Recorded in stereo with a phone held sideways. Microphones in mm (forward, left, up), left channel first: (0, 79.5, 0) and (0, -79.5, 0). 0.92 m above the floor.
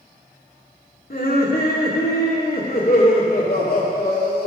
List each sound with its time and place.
1.1 s laughter: 75° left (ahead or behind), 2 m